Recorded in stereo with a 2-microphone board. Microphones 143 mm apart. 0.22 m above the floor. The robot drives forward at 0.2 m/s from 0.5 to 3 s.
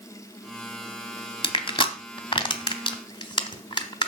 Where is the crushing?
35° left (ahead or behind), 1.0 m.